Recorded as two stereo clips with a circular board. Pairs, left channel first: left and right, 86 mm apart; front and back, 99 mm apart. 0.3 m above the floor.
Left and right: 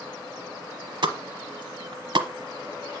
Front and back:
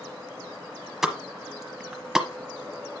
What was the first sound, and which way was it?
A pop, 95° right.